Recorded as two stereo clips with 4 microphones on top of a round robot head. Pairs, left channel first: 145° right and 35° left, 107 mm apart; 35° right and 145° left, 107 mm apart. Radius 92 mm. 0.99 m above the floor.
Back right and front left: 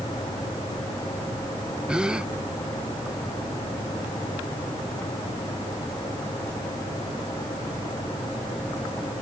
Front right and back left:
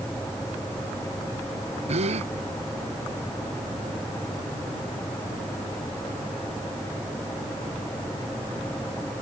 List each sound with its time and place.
1.9 s a gasp: 120° left